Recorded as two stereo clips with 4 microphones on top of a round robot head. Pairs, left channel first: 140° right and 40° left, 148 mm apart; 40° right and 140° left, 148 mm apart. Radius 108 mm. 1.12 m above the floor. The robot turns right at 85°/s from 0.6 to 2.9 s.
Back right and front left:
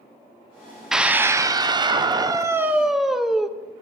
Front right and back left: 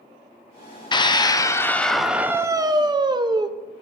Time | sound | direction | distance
0.9 | a scream | 45° right | 0.7 m